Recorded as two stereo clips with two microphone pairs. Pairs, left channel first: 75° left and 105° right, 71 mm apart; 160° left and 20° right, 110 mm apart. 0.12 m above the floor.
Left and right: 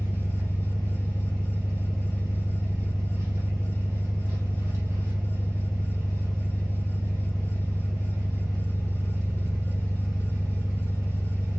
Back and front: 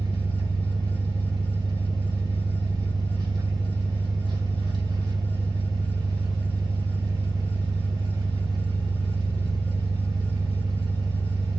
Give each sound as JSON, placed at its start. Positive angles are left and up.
{"t": 0.0, "sound": "an engine running", "azimuth_deg": -70, "distance_m": 1.7}